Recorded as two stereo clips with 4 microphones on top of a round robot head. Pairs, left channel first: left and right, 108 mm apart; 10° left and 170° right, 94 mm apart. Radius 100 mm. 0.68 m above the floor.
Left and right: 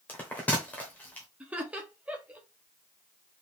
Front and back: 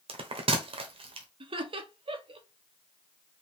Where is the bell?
170° left, 1.1 m.